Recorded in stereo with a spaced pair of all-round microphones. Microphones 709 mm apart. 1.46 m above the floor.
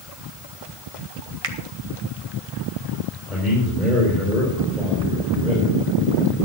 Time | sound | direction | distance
1.4 | a finger snap | 50° right (ahead or behind) | 1.2 m
3.3 | a man speaking | centre (ahead or behind) | 4.5 m